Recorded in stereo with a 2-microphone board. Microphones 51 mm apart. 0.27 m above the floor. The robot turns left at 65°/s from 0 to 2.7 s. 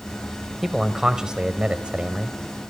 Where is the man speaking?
Centre (ahead or behind), 1.5 m; by 2.4 s 15° right (ahead or behind), 1.5 m.